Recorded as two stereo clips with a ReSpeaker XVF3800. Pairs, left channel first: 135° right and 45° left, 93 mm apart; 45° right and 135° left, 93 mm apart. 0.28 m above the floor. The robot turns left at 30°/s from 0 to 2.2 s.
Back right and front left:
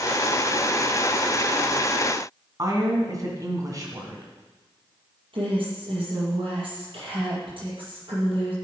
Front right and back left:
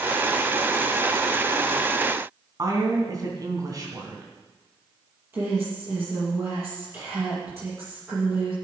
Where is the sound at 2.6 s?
90° left, 3 m.